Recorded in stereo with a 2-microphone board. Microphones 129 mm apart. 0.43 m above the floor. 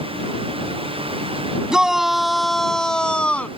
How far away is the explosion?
I don't hear an explosion.